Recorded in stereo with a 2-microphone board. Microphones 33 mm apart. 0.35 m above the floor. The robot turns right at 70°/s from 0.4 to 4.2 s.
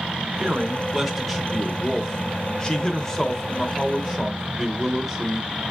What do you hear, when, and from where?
0.4 s a man speaking: 20° right (ahead or behind), 0.9 m; by 5.5 s 10° right (ahead or behind), 0.9 m